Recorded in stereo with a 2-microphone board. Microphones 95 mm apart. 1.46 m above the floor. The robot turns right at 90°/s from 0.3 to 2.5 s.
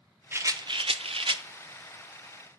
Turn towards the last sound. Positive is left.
turn(degrees=40)